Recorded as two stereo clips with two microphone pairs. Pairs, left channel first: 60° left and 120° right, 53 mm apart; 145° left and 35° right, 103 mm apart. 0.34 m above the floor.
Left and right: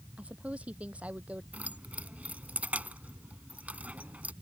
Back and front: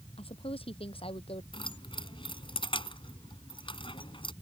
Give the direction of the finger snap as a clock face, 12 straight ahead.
I don't hear a finger snap.